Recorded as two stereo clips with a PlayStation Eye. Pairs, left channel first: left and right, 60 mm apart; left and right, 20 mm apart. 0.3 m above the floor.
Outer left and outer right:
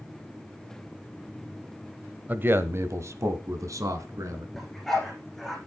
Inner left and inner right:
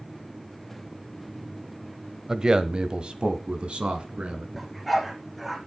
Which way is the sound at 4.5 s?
5° left (ahead or behind).